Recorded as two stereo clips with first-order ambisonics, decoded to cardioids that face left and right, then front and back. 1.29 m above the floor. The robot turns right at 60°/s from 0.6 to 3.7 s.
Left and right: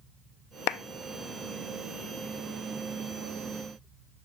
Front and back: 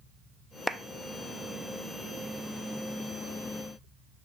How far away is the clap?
About 0.6 m.